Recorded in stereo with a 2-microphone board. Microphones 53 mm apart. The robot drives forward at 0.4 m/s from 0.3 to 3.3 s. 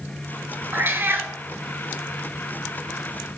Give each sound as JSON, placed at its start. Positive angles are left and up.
{"t": 0.7, "sound": "a cat meowing", "side_deg": -45, "distance_m": 0.6}